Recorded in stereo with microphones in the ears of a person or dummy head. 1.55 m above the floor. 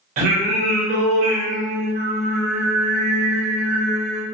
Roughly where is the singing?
Right.